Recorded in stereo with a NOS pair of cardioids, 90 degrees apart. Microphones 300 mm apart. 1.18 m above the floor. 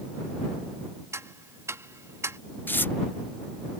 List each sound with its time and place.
1.1 s ticking: 10° right
2.7 s tearing paper: 5° left